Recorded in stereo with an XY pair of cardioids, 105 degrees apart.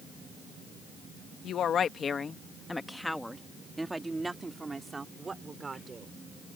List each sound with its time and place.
1.4 s a woman speaking: 65° left; by 6.2 s 30° right